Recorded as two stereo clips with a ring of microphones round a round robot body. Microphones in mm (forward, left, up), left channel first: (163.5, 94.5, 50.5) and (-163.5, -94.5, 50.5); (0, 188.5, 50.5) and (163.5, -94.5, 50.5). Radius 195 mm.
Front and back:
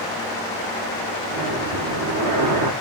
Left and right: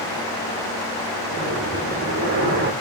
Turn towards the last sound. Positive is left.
turn(degrees=-115)